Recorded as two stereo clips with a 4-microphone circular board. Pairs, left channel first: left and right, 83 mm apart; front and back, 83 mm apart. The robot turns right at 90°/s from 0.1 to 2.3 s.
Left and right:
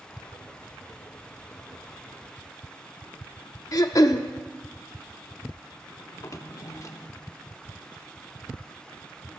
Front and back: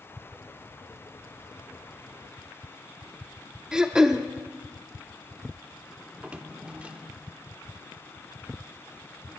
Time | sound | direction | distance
3.7 | throat clearing | 100° left | 0.8 m
6.1 | a drawer | 110° left | 0.9 m